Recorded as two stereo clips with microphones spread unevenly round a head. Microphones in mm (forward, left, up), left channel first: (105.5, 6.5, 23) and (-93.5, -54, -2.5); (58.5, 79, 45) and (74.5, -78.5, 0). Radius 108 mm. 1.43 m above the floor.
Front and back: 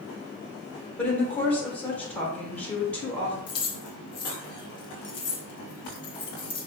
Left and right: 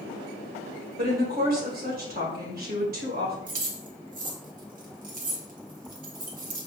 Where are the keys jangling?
45° right, 0.8 m.